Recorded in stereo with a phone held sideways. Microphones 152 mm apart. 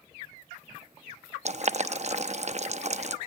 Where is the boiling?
50° right (ahead or behind), 0.7 m.